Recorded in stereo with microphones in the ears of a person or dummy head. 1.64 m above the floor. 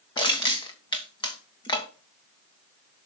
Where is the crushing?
25° left (ahead or behind), 1.3 m.